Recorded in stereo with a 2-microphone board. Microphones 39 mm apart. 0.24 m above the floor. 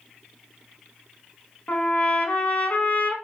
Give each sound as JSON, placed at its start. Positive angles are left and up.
{"t": 1.7, "sound": "a trumpet", "side_deg": 45, "distance_m": 0.9}